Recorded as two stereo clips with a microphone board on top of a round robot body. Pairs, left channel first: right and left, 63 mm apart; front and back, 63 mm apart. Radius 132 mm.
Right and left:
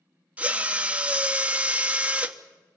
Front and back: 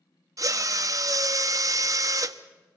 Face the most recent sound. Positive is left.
turn(degrees=155)